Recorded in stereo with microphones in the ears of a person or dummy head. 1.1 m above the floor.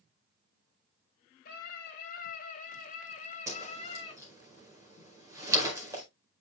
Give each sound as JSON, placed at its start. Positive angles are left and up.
{"t": 1.4, "sound": "a scream", "side_deg": 50, "distance_m": 3.5}
{"t": 3.5, "sound": "a whoosh", "side_deg": -15, "distance_m": 4.5}